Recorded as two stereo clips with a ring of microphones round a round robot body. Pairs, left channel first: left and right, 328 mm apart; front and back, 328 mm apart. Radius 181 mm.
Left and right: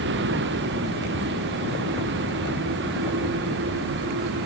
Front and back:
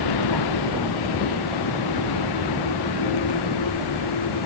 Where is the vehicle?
30° right.